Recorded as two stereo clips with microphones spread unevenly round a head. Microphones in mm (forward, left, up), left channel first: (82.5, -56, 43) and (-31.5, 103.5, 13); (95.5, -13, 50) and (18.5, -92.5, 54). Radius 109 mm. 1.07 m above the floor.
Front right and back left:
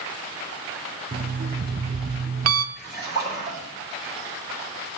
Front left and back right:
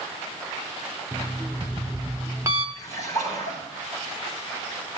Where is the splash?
155° right, 6 m.